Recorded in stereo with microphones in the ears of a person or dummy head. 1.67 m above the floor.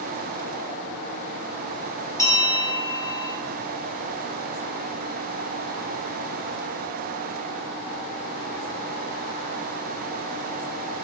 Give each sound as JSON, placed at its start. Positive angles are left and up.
{"t": 2.2, "sound": "a bell", "side_deg": 20, "distance_m": 4.5}